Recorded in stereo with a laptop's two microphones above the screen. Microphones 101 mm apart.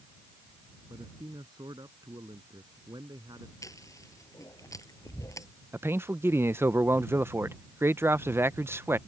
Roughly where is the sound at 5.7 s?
Right.